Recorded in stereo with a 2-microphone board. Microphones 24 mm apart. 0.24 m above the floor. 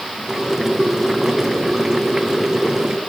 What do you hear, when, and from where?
0.3 s boiling: 15° right (ahead or behind), 1.8 m